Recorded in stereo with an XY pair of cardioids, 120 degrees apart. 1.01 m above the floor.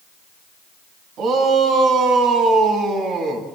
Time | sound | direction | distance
1.2 | a shout | 65° right | 9 m